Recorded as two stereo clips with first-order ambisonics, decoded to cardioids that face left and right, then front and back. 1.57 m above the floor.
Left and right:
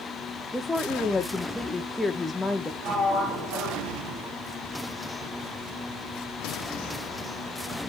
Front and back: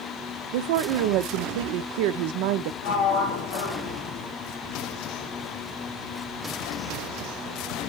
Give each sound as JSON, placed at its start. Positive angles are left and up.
{"t": 0.5, "sound": "a woman speaking", "azimuth_deg": 175, "distance_m": 0.6}
{"t": 2.8, "sound": "a sliding door", "azimuth_deg": -35, "distance_m": 3.0}